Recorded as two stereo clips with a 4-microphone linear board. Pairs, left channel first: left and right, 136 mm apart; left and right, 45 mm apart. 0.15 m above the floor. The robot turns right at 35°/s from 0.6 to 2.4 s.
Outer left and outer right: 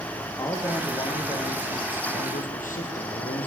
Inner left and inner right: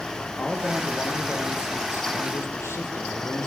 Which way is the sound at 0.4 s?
20° left.